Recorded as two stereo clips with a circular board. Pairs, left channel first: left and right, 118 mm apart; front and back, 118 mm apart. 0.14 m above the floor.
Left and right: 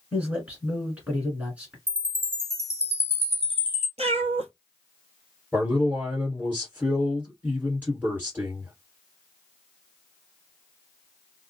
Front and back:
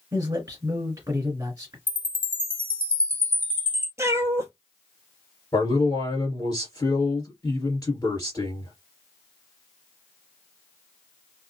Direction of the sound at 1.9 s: 120° right.